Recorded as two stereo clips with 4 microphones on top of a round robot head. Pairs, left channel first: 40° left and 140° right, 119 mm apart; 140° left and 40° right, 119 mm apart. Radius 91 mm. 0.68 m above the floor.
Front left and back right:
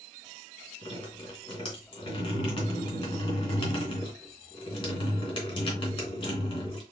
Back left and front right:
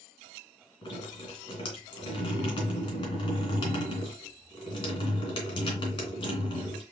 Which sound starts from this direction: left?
Dripping, at 0.8 s.